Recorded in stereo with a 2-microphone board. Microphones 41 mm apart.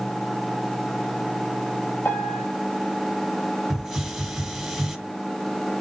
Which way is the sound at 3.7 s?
5° right (ahead or behind).